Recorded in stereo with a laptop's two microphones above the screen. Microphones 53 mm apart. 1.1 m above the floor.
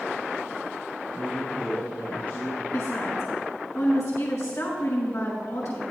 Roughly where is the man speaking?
Left.